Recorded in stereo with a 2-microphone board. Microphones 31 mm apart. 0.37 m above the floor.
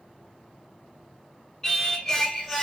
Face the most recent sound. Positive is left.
turn(degrees=15)  # may be behind; listen again after turning